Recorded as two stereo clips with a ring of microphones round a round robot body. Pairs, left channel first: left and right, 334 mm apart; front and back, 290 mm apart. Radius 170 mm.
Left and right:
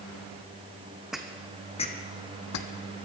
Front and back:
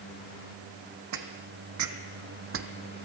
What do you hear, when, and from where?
1.1 s footsteps: straight behind, 1.3 m; by 2.7 s 130° left, 1.1 m